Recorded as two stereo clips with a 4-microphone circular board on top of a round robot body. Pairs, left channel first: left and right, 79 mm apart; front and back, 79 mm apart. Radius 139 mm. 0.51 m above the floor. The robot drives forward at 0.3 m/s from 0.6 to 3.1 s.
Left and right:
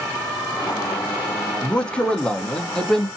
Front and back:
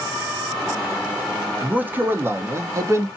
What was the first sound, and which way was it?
A man speaking, 140° left.